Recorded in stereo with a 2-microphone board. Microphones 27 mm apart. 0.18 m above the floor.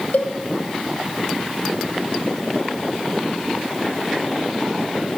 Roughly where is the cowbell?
Left.